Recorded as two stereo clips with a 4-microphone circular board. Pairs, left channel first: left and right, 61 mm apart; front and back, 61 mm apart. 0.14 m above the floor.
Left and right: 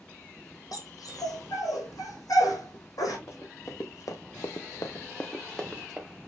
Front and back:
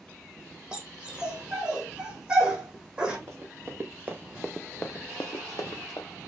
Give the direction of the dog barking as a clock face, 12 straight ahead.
9 o'clock.